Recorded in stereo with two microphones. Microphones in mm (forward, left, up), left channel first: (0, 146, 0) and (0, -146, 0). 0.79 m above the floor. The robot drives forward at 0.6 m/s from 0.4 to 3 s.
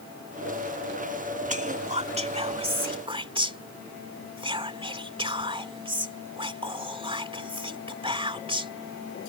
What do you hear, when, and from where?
1.5 s whispering: 25° right (ahead or behind); by 8.7 s 15° right (ahead or behind)